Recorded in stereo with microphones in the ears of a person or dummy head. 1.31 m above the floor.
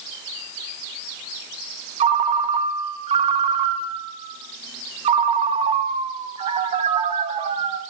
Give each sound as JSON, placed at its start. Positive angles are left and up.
{"t": 2.0, "sound": "a ringtone", "side_deg": -35, "distance_m": 0.6}